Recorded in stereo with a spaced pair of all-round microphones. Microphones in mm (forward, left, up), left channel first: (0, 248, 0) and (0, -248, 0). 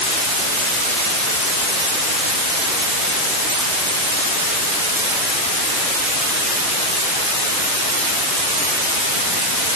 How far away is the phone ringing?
I don't hear a phone ringing.